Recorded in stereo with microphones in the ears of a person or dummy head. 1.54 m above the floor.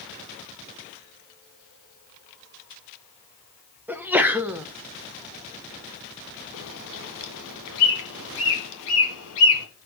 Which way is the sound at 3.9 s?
5° right (ahead or behind).